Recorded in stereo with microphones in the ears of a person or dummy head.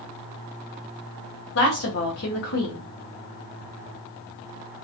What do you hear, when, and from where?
1.6 s a woman speaking: 65° left (ahead or behind), 0.9 m